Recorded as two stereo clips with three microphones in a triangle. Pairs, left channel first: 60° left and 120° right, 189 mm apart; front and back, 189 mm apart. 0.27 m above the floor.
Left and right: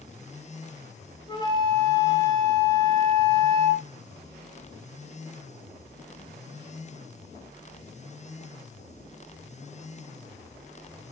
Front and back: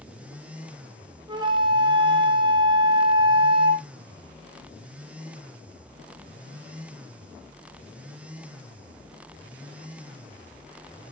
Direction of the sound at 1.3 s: 120° left.